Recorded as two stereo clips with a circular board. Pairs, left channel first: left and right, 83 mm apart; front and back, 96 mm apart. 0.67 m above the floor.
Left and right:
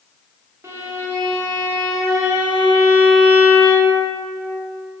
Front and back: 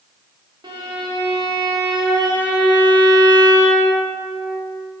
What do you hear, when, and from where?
0.6 s a violin: 145° right, 0.6 m